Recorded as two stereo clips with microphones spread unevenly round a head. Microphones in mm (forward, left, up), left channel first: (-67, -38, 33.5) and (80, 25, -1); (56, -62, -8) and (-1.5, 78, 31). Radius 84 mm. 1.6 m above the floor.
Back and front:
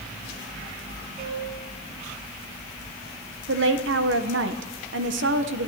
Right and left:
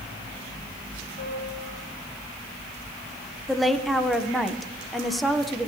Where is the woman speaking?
20° left, 1.4 m.